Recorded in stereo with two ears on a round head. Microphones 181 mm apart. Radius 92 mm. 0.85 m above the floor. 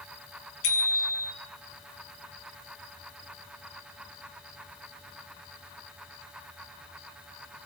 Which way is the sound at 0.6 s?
75° left (ahead or behind).